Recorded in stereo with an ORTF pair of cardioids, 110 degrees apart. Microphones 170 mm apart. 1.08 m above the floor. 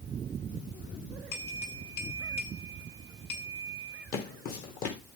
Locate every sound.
1.3 s a bell: 65° left, 9 m
4.1 s footsteps: 65° left, 4 m